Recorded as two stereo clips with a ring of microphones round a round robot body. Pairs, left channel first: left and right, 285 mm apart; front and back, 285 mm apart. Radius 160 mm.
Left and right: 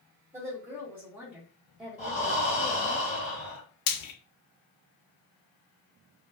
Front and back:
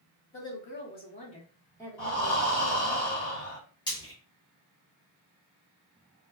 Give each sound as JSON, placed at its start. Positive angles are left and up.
{"t": 0.3, "sound": "a woman speaking", "azimuth_deg": -15, "distance_m": 1.5}
{"t": 2.0, "sound": "breathing", "azimuth_deg": 20, "distance_m": 1.8}
{"t": 3.9, "sound": "frying", "azimuth_deg": 75, "distance_m": 0.5}